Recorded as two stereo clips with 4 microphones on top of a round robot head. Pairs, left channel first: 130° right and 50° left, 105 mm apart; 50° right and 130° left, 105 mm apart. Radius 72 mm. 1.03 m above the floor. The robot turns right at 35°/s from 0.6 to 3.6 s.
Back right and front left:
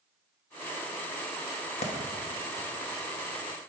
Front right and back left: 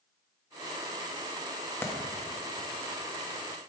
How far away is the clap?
About 1.2 m.